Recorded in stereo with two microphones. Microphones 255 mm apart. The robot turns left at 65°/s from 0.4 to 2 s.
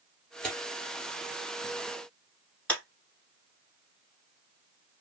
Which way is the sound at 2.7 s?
5° left (ahead or behind).